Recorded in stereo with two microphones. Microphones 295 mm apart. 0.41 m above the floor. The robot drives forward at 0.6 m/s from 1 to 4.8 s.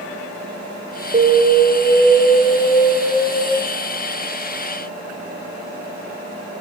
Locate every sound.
1.1 s an alarm: 30° right (ahead or behind), 0.9 m; by 3.4 s 15° right (ahead or behind), 2 m